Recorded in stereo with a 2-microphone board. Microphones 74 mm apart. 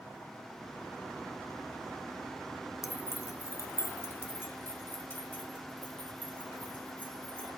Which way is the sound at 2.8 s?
45° left (ahead or behind).